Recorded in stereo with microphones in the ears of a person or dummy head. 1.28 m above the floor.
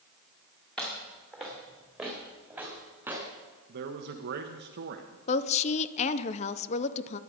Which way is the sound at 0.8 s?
5° left (ahead or behind).